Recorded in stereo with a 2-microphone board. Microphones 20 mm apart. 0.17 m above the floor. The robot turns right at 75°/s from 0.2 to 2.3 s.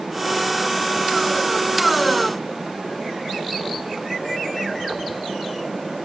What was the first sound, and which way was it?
Only background noise.